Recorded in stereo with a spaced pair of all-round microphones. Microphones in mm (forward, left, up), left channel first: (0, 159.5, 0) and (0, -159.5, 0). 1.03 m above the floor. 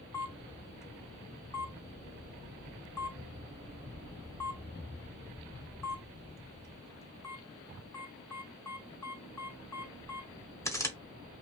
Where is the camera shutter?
10° left (ahead or behind), 0.8 m.